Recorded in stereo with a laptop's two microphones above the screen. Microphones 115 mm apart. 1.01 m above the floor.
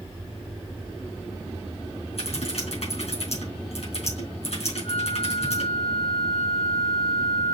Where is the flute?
65° left (ahead or behind), 2.5 m.